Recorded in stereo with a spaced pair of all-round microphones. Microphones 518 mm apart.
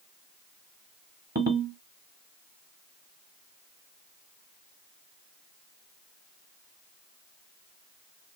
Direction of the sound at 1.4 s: 20° right (ahead or behind).